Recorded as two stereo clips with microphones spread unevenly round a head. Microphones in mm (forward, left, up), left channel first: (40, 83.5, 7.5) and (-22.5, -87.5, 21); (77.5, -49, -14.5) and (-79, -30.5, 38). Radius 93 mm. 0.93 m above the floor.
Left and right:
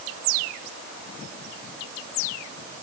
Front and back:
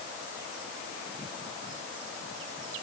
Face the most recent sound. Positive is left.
No sound to turn to.